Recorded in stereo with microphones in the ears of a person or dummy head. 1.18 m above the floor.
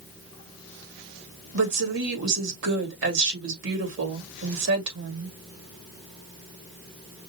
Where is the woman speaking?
70° right (ahead or behind), 2.5 m.